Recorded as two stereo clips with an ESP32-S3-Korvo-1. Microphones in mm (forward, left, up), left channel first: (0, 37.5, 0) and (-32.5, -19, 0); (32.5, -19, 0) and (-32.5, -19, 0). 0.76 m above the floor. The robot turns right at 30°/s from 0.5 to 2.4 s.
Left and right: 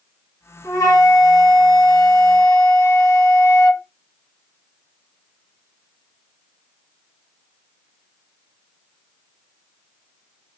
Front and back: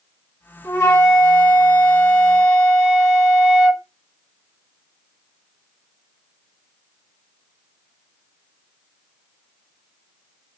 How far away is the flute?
About 1.2 m.